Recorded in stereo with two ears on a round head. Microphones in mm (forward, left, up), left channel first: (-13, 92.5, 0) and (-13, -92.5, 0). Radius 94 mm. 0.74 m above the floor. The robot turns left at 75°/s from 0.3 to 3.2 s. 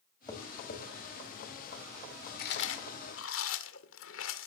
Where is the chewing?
45° left (ahead or behind), 1.9 m; by 4.5 s 65° left (ahead or behind), 1.9 m.